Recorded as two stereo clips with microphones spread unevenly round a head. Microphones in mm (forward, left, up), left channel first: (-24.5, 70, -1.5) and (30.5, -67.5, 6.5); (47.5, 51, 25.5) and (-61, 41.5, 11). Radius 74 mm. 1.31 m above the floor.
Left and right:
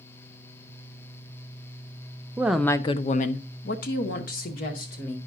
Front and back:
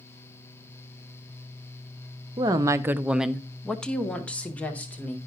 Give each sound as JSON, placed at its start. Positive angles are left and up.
{"t": 2.4, "sound": "a woman speaking", "azimuth_deg": -145, "distance_m": 0.5}